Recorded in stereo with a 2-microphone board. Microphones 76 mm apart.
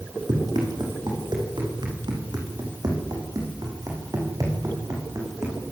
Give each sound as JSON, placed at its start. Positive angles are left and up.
{"t": 0.3, "sound": "running footsteps", "side_deg": -75, "distance_m": 6.5}